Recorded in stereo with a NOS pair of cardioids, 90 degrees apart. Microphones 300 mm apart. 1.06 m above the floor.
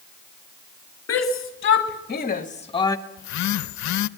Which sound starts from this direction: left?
A phone buzzing, at 3.2 s.